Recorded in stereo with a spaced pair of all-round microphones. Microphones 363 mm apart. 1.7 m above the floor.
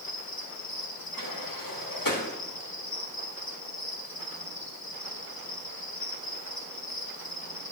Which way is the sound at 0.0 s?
70° left (ahead or behind).